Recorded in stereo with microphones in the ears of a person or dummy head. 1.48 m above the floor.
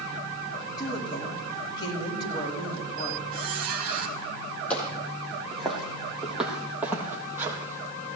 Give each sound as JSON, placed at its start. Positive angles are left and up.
{"t": 0.8, "sound": "a woman speaking", "side_deg": 30, "distance_m": 8.0}
{"t": 3.3, "sound": "a squeak", "side_deg": -50, "distance_m": 3.5}
{"t": 4.7, "sound": "footsteps", "side_deg": 10, "distance_m": 4.0}